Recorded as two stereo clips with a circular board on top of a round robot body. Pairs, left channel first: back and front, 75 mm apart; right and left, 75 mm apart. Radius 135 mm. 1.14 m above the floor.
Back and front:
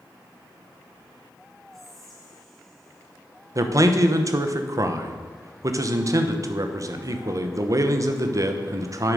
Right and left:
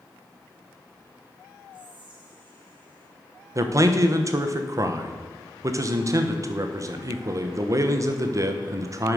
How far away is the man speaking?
About 1.1 m.